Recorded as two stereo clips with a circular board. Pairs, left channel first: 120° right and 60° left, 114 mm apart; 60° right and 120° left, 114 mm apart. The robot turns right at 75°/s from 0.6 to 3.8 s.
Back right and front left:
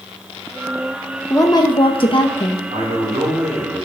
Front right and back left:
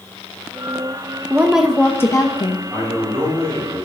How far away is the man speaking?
About 5.5 m.